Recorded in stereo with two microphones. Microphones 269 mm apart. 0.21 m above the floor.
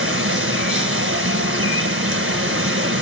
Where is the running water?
50° right (ahead or behind), 1.2 m.